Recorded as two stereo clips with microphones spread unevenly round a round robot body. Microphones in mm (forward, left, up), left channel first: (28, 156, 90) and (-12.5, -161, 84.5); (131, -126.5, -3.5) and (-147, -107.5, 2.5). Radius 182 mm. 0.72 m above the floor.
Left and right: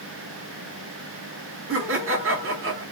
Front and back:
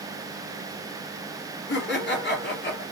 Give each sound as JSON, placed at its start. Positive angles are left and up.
{"t": 1.7, "sound": "laughter", "azimuth_deg": -50, "distance_m": 1.9}